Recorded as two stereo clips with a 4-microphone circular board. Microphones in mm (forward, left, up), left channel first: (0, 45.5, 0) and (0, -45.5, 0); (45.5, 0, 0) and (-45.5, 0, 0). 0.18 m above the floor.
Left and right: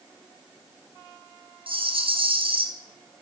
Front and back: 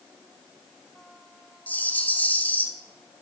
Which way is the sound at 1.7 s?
75° right.